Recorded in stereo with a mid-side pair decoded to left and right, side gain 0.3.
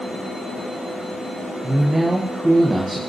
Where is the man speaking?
25° right, 1.4 m.